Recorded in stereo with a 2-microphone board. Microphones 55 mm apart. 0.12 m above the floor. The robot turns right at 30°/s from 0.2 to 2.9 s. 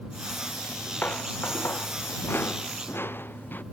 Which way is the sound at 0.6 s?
30° left (ahead or behind).